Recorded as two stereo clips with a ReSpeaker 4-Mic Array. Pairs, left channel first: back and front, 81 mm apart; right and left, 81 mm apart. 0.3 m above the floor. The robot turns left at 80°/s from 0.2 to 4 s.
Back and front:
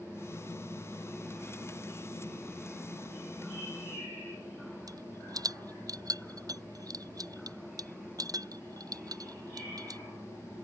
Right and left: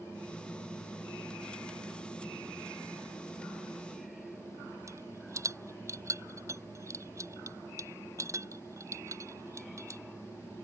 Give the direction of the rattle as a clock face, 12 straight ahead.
11 o'clock.